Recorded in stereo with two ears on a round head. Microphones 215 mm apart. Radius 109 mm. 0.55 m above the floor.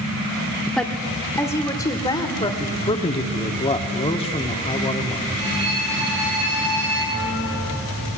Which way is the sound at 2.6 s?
25° left (ahead or behind).